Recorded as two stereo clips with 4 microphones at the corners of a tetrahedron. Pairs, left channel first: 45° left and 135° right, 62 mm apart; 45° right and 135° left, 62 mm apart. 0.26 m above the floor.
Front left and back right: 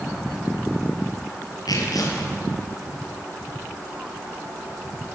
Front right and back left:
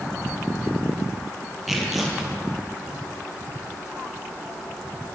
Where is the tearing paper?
50° left, 5.5 m.